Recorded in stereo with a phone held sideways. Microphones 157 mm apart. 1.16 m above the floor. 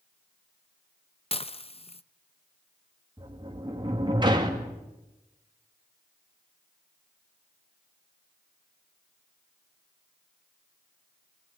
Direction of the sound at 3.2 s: 30° right (ahead or behind).